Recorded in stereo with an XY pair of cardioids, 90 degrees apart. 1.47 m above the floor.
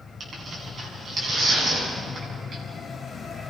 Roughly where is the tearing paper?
Ahead right.